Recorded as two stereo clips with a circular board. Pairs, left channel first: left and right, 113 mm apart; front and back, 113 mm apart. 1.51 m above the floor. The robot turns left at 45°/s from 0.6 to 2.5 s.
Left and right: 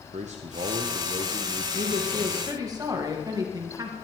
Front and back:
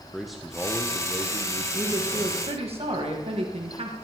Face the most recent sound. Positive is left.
turn(degrees=-150)